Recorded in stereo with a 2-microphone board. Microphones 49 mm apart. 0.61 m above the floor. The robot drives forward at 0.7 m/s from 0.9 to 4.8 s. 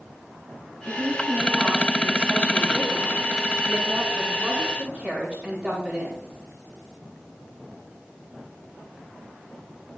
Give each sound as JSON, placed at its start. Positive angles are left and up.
{"t": 0.8, "sound": "a woman speaking", "side_deg": -35, "distance_m": 4.5}